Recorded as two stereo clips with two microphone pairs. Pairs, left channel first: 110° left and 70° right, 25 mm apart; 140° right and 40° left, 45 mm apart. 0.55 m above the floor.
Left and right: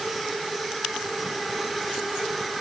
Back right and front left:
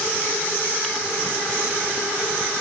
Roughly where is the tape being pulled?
No tape being pulled in this recording.